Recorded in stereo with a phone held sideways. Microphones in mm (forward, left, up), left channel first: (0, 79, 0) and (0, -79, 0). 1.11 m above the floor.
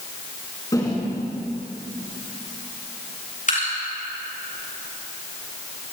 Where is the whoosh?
25° left (ahead or behind), 6 m.